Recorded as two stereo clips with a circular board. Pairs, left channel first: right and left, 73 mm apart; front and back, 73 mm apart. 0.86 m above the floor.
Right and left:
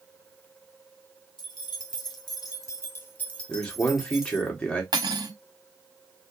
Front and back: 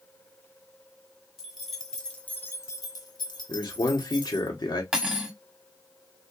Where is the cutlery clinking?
95° left, 1.0 m.